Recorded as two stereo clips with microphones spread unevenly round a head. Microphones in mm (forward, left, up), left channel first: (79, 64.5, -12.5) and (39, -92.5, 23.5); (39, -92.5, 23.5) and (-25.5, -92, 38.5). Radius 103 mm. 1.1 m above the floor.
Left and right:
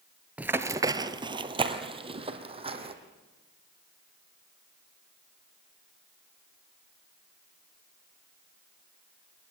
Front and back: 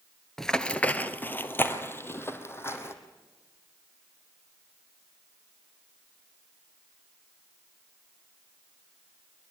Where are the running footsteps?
115° right, 1.1 m; by 2.9 s 55° right, 3 m.